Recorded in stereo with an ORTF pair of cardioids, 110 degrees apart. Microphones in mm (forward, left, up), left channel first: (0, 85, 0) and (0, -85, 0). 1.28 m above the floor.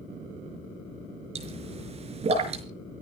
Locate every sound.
1.4 s a pop: 40° right, 5 m